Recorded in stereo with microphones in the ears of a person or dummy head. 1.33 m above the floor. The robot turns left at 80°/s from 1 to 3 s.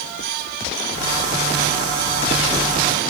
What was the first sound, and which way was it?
Only background noise.